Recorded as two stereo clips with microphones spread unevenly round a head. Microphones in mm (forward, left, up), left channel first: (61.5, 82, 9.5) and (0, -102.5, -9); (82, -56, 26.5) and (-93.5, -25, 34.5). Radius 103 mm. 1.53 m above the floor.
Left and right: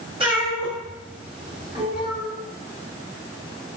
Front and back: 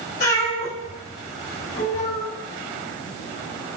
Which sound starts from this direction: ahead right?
A cat meowing, at 0.2 s.